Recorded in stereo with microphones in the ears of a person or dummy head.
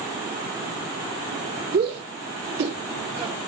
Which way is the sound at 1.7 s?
55° right (ahead or behind).